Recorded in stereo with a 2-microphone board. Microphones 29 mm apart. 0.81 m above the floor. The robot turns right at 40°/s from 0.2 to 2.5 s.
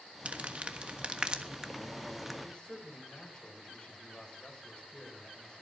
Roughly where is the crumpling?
Right.